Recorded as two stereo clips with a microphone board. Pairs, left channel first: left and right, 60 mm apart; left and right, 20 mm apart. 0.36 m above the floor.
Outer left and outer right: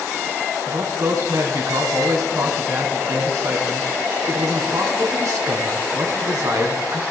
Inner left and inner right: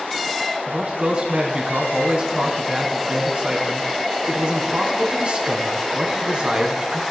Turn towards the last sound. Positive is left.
turn(degrees=-70)  # may be behind; listen again after turning